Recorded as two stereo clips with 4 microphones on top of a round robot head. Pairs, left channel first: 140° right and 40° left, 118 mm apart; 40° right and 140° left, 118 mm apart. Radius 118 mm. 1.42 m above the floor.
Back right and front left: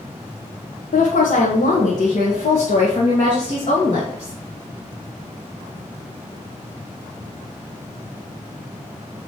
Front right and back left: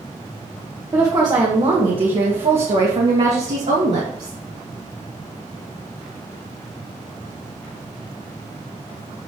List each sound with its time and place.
0.9 s a woman speaking: 150° right, 1.2 m; by 4.4 s 170° left, 3 m